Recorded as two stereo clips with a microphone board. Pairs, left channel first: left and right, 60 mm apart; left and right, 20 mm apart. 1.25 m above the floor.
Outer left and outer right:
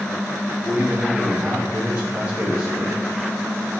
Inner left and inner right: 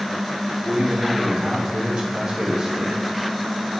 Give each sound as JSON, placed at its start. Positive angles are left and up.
{"t": 0.7, "sound": "a man speaking", "side_deg": -20, "distance_m": 3.0}